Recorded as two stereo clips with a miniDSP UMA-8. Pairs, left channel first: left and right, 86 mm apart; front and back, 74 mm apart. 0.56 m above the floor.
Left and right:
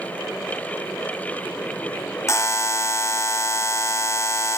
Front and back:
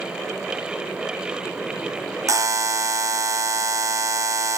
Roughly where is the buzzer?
Behind left.